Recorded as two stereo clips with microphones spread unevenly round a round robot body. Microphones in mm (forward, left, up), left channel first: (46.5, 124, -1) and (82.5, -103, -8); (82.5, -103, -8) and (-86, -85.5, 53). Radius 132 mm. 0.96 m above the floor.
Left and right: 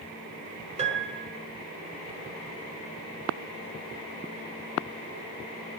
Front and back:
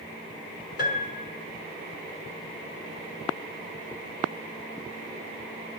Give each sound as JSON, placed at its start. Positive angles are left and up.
{"t": 0.8, "sound": "a piano", "azimuth_deg": -20, "distance_m": 4.5}